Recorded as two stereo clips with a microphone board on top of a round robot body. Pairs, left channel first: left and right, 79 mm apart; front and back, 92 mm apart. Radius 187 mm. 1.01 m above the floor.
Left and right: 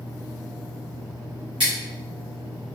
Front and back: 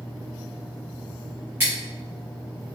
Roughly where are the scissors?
Right.